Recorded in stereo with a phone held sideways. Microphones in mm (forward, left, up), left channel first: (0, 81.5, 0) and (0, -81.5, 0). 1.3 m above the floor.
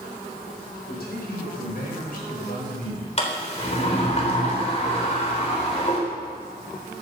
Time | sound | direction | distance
0.9 | a man speaking | 75° left (ahead or behind) | 5 m
3.2 | a sliding door | 40° left (ahead or behind) | 3.5 m